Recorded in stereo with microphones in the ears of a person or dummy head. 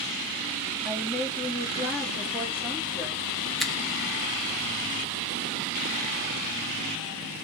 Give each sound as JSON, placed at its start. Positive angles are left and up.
{"t": 0.8, "sound": "a woman speaking", "side_deg": -5, "distance_m": 1.8}
{"t": 3.6, "sound": "a finger snap", "side_deg": 5, "distance_m": 0.6}